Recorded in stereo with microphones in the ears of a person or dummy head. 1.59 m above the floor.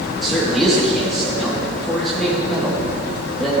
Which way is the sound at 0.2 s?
5° left (ahead or behind).